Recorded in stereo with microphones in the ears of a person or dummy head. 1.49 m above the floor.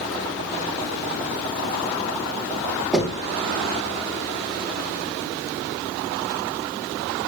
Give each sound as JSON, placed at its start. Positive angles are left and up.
{"t": 2.9, "sound": "knocking", "side_deg": 0, "distance_m": 2.0}